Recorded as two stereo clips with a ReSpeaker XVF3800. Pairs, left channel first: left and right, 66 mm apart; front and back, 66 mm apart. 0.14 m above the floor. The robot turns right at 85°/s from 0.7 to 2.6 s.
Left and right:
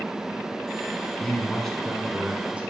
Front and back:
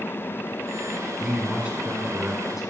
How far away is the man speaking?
About 1.2 m.